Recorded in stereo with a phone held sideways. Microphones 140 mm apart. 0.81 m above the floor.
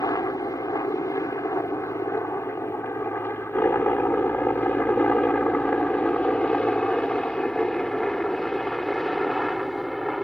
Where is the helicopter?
25° left (ahead or behind); by 10.2 s centre (ahead or behind).